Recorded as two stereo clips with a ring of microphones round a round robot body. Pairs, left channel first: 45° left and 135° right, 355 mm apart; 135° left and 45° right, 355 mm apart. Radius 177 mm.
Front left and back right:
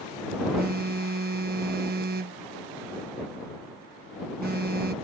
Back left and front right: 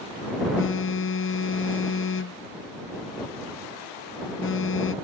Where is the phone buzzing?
175° left.